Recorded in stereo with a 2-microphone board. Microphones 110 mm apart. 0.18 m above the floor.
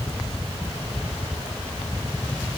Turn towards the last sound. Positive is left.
No sound to turn to.